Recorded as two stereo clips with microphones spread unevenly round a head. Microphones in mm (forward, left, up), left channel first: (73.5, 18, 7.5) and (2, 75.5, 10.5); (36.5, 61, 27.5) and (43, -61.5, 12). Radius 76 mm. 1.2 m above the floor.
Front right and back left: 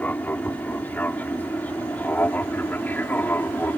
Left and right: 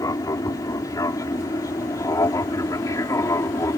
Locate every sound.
0.0 s an aircraft: 35° left; by 3.8 s 30° left